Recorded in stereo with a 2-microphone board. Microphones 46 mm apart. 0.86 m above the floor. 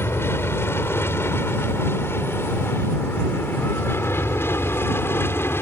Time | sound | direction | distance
0.0 | an aircraft | 60° left (ahead or behind) | ?